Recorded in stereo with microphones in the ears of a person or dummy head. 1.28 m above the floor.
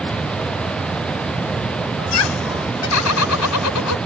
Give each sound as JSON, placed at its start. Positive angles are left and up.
{"t": 2.0, "sound": "laughter", "side_deg": 75}